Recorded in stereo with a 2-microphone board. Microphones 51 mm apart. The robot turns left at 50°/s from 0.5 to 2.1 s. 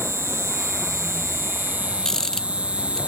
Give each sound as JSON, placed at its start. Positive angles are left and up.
{"t": 0.0, "sound": "an insect", "azimuth_deg": -75}
{"t": 2.0, "sound": "a rattle", "side_deg": 10}